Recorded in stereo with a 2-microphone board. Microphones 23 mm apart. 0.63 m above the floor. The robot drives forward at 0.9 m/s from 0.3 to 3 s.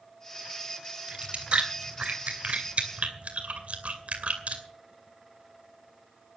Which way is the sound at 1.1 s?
45° right (ahead or behind).